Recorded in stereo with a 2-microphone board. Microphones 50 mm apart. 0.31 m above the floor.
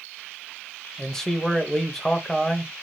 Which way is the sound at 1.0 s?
10° left (ahead or behind).